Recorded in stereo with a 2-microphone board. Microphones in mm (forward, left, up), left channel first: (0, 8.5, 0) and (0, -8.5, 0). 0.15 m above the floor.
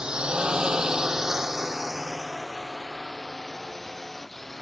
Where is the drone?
65° right (ahead or behind); by 4.6 s 10° left (ahead or behind).